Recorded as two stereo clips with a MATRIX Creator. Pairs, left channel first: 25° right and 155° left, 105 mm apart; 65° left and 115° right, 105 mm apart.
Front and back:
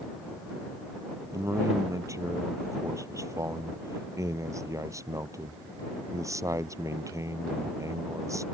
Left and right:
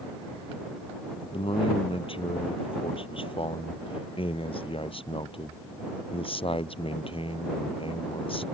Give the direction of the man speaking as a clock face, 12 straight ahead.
9 o'clock.